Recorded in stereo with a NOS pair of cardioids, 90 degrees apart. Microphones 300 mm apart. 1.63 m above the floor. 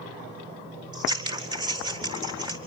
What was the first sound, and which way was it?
Scissors, 15° right.